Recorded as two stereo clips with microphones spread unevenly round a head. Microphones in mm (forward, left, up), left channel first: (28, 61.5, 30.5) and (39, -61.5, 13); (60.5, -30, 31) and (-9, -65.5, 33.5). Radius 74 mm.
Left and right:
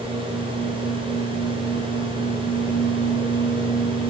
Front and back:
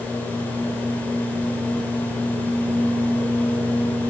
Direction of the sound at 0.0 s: 40° right.